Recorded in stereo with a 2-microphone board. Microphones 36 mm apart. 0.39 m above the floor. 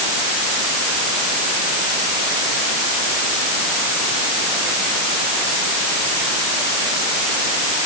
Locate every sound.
Only background noise.